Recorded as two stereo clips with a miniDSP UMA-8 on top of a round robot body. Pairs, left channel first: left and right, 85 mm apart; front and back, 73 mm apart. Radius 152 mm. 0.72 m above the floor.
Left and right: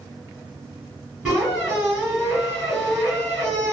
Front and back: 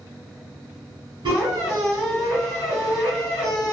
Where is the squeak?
175° right, 1.5 m.